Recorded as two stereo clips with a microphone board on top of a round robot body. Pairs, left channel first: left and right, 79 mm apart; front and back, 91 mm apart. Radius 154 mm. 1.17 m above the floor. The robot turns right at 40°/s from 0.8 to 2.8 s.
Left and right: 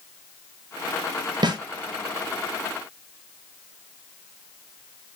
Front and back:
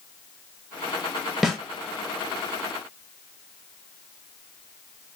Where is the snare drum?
90° right, 1.1 m; by 1.6 s 85° right, 1.1 m.